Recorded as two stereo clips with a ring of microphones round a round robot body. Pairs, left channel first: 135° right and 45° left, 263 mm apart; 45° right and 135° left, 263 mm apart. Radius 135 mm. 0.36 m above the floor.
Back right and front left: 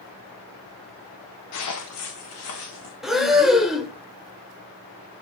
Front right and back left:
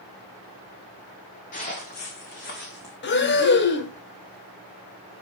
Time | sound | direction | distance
1.5 | footsteps | 105° right | 1.7 m
3.0 | breathing | 45° right | 1.0 m